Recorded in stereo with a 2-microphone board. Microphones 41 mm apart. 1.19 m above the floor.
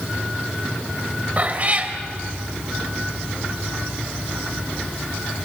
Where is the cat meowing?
40° right (ahead or behind), 1.7 m.